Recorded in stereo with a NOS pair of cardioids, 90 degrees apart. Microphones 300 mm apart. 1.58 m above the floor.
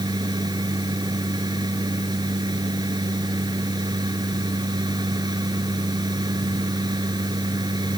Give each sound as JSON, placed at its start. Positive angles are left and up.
{"t": 0.0, "sound": "a machine running", "azimuth_deg": -15}